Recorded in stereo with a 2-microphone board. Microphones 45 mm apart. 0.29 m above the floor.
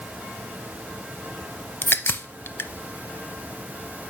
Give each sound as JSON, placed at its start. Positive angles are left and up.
{"t": 1.8, "sound": "a crack", "side_deg": 55, "distance_m": 0.6}